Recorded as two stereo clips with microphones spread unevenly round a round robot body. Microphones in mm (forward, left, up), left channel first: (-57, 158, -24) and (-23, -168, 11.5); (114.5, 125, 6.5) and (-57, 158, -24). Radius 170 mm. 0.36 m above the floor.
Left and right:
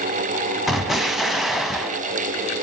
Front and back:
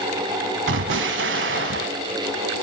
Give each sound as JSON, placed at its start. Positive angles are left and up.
{"t": 0.7, "sound": "an explosion", "azimuth_deg": -175, "distance_m": 0.7}